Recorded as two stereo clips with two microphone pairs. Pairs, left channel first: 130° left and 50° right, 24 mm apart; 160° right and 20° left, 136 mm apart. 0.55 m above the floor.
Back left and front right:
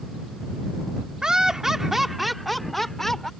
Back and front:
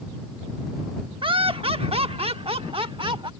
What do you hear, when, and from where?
1.2 s laughter: 5° right; by 3.3 s 65° left